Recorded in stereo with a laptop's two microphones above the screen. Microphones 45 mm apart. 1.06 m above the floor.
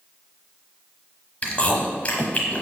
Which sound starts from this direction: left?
Chewing, at 1.4 s.